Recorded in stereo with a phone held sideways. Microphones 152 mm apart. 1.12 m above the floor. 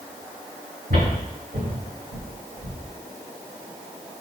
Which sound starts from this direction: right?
Footsteps, at 0.9 s.